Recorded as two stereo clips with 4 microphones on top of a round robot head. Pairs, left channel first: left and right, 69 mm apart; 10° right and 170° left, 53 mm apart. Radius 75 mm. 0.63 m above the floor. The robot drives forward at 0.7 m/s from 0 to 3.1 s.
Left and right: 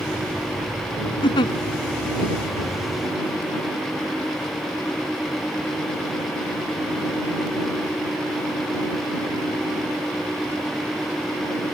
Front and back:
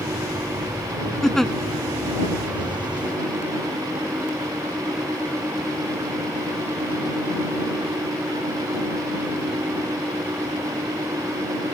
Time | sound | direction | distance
1.2 | a giggle | 75° left | ?